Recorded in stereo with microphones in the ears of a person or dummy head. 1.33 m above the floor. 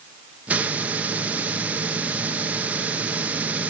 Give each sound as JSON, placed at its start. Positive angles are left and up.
{"t": 0.5, "sound": "a hiss", "side_deg": -5, "distance_m": 0.7}